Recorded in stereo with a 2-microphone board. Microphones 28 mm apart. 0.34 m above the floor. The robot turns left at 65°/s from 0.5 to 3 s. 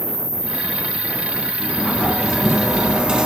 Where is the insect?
150° right, 2 m; by 3.3 s 45° left, 2 m.